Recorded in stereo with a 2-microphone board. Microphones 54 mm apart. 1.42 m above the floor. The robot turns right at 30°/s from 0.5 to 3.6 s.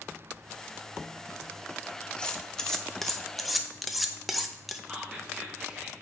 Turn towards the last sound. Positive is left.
turn(degrees=-15)  # may be behind; listen again after turning